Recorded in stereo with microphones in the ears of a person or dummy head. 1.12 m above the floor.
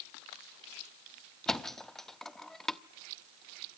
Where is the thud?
Centre (ahead or behind), 0.5 m.